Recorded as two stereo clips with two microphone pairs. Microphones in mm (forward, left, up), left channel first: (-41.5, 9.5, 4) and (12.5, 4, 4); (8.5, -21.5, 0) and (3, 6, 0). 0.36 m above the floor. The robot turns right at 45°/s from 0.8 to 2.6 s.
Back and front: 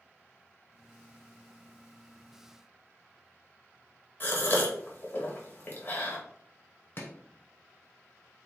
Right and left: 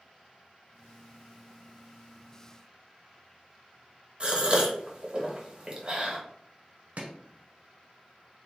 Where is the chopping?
125° left, 0.8 m.